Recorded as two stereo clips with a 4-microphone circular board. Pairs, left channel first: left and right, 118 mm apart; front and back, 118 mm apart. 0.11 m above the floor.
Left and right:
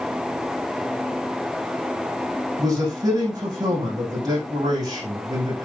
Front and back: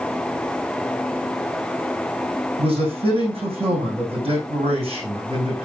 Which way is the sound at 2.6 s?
145° right.